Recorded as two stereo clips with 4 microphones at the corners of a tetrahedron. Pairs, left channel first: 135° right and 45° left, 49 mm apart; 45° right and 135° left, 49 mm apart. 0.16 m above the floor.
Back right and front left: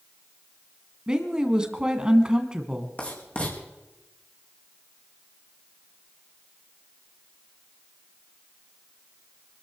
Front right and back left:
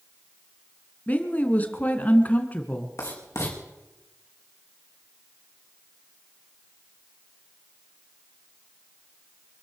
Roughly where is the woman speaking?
Ahead.